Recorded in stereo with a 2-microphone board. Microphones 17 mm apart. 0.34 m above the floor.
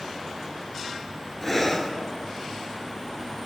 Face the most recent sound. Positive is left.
turn(degrees=15)  # may be behind; listen again after turning